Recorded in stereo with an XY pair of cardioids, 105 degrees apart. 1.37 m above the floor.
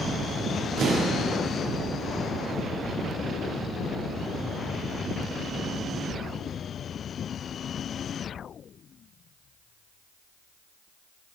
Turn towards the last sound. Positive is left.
turn(degrees=-70)